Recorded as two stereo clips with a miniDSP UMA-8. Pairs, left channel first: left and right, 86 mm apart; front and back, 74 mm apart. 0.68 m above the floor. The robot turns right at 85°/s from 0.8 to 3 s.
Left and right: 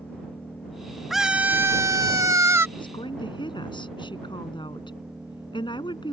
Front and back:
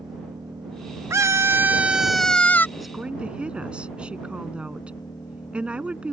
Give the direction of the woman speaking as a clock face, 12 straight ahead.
9 o'clock.